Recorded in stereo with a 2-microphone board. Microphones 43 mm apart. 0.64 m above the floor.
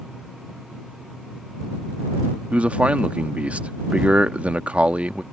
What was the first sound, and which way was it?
A man speaking, 30° right (ahead or behind).